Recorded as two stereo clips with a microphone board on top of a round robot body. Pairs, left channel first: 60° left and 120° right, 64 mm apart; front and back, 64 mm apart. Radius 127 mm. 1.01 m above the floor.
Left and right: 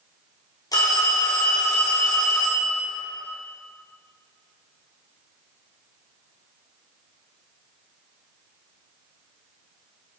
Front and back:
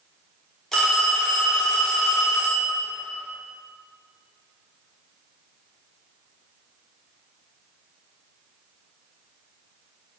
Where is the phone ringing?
85° left, 1.9 m.